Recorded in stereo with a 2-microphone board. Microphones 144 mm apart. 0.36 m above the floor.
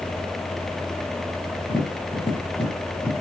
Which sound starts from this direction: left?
Tapping, at 1.7 s.